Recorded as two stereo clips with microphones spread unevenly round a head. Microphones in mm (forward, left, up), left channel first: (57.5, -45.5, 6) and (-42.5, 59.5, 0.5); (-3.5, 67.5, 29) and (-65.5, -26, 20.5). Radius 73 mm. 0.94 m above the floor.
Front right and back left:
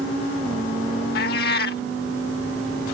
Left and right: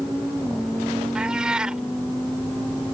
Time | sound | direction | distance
1.1 | a cat meowing | 35° right | ?